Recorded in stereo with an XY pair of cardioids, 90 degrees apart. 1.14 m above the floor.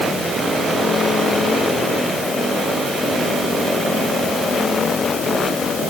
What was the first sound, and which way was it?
Only background noise.